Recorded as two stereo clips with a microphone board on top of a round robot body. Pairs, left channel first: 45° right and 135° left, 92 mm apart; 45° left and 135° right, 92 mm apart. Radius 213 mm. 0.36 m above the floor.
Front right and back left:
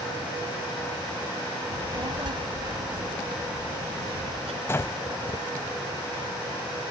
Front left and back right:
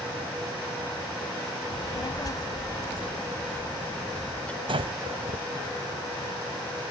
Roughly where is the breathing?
Right.